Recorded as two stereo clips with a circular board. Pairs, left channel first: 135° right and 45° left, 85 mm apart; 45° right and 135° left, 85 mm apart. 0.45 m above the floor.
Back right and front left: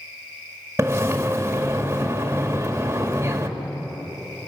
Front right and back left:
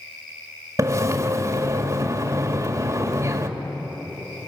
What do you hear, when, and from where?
0.8 s a splash: 95° left, 1.8 m